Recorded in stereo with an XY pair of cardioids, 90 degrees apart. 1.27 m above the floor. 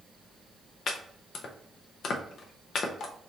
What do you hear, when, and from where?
0.9 s chopping: 70° left, 0.7 m